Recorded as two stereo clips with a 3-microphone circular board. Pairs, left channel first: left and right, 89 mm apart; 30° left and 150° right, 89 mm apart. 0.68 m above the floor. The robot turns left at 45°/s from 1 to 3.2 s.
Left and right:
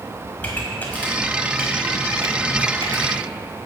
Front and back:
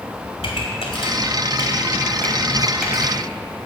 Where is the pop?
20° left, 2 m; by 3.2 s 80° right, 2 m.